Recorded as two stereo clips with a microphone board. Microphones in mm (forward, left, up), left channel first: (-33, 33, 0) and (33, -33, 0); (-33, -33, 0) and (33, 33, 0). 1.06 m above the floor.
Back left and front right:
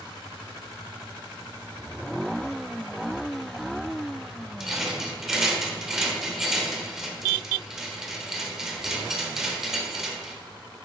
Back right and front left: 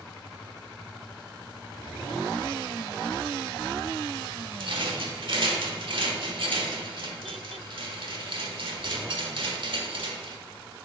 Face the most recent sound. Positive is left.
turn(degrees=40)